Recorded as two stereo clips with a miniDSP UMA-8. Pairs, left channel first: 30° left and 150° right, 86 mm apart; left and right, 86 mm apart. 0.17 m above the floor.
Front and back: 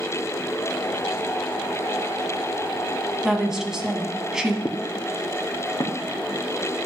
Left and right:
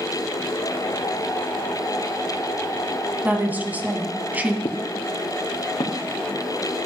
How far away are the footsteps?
About 0.9 m.